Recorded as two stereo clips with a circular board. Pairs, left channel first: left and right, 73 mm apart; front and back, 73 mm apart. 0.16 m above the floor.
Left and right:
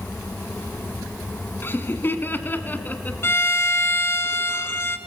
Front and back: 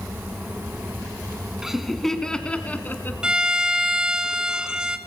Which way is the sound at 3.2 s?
110° left.